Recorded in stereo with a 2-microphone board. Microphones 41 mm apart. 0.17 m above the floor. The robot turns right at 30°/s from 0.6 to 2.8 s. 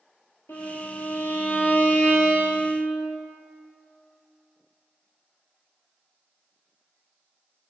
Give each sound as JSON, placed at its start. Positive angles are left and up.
{"t": 0.5, "sound": "a violin", "azimuth_deg": 100, "distance_m": 0.7}